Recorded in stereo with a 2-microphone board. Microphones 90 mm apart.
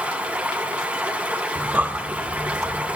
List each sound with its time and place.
0.0 s running water: 15° right (ahead or behind), 3 m
1.6 s breathing: 15° right (ahead or behind), 1.1 m